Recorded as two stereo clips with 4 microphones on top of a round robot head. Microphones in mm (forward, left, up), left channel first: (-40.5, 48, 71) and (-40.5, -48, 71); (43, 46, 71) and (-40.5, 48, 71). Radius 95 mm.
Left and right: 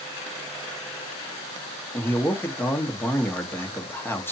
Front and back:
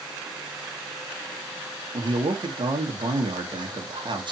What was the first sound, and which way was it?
A man speaking, 160° left.